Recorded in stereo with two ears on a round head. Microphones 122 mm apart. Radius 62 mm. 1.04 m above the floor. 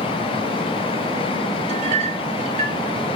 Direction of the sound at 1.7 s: 50° right (ahead or behind).